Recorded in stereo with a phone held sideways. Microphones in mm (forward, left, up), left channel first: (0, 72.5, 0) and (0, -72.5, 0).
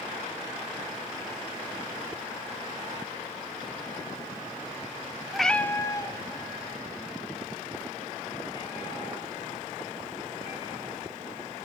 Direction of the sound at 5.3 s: Centre (ahead or behind).